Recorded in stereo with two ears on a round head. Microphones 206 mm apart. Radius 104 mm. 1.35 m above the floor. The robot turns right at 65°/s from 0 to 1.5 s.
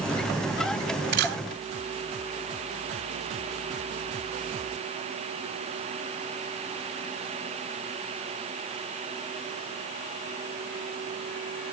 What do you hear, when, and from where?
1.1 s a camera shutter: 45° right (ahead or behind), 1.7 m; by 1.4 s 50° right (ahead or behind), 1.7 m